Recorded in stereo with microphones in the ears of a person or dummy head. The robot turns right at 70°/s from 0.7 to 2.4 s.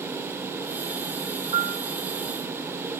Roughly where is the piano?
Right.